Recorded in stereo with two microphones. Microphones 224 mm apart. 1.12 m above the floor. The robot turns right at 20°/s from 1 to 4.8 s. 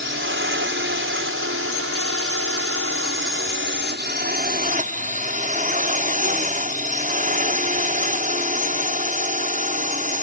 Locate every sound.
0.0 s a drone: 115° right; by 10.2 s 35° right